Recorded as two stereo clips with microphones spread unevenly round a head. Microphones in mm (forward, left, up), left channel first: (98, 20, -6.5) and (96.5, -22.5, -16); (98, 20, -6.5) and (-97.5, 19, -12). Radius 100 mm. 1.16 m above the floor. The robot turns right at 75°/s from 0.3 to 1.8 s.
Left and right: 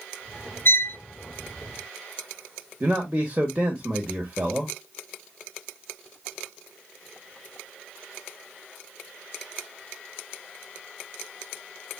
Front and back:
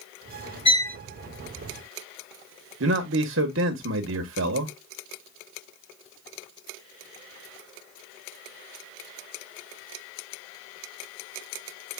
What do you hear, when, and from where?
0.7 s a violin: 65° left, 0.9 m; by 1.0 s 85° left, 0.9 m
2.8 s a man speaking: 165° right, 0.9 m